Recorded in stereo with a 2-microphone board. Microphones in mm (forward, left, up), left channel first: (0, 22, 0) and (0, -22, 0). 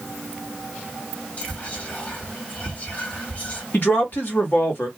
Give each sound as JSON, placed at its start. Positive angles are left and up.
{"t": 1.4, "sound": "whispering", "side_deg": 35, "distance_m": 1.8}
{"t": 3.7, "sound": "a man speaking", "side_deg": 55, "distance_m": 1.6}